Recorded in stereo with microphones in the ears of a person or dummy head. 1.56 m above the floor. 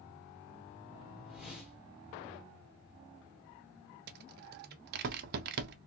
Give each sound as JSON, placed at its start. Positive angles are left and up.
{"t": 1.2, "sound": "a whoosh", "side_deg": 0, "distance_m": 2.0}
{"t": 4.1, "sound": "a rattle", "side_deg": -60, "distance_m": 0.6}